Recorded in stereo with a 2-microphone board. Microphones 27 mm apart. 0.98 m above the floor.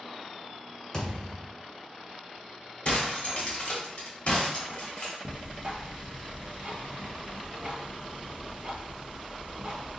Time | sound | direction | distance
0.9 | a thud | 25° left (ahead or behind) | 1.2 m
2.9 | breaking glass | 55° left (ahead or behind) | 1.0 m
5.2 | ticking | 35° right (ahead or behind) | 0.8 m